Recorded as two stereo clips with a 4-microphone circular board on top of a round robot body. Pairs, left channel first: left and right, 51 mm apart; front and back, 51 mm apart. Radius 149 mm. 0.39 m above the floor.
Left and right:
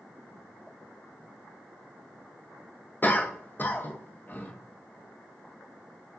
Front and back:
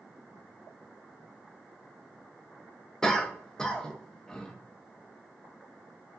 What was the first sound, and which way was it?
A cough, 70° left.